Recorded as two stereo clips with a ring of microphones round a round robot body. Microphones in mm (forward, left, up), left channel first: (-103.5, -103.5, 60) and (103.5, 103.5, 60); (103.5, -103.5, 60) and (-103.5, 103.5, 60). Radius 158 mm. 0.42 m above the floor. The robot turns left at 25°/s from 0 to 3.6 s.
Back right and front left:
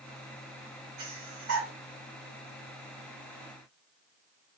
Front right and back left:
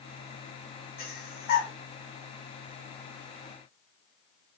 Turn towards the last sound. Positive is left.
turn(degrees=-40)